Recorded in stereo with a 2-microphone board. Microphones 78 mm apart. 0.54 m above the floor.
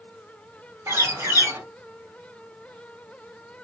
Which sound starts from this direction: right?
A bird, at 0.9 s.